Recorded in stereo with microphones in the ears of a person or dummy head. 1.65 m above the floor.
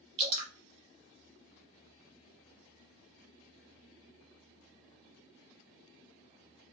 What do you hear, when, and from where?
0.2 s dripping: 25° right (ahead or behind), 0.8 m